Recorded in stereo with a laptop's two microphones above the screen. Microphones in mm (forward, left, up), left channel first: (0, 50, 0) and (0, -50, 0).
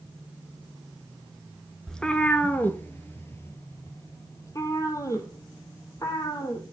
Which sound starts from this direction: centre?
A cat meowing, at 1.9 s.